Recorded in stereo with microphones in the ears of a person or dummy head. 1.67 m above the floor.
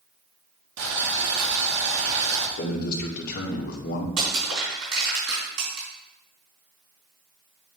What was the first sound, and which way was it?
Boiling, 70° right (ahead or behind).